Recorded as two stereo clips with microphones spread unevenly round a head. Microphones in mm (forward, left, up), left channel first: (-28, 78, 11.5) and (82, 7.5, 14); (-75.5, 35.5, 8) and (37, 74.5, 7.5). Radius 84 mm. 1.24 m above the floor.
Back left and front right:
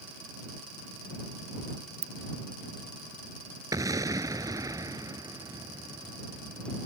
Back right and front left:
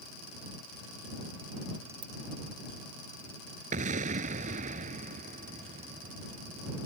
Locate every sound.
2.0 s a ringtone: 40° right
3.7 s an explosion: 30° left